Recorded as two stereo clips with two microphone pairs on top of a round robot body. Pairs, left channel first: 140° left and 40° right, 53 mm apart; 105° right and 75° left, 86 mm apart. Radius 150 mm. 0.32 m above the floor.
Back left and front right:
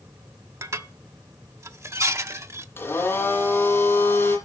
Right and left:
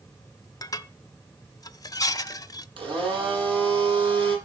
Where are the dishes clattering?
70° right, 1.1 m.